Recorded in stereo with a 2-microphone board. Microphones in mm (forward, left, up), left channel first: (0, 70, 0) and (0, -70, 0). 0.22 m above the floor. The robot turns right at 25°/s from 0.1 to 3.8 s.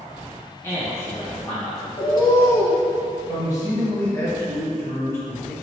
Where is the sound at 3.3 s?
25° left (ahead or behind), 1.3 m; by 5.5 s 20° left (ahead or behind), 1.3 m.